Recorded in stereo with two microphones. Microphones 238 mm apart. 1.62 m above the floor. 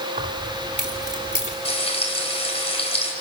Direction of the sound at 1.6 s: 25° left (ahead or behind).